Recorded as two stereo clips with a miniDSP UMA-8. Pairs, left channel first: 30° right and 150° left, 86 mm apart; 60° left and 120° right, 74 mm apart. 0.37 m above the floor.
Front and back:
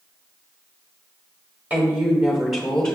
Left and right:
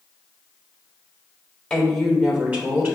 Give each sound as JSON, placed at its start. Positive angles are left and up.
{"t": 1.7, "sound": "a woman speaking", "azimuth_deg": 125, "distance_m": 1.1}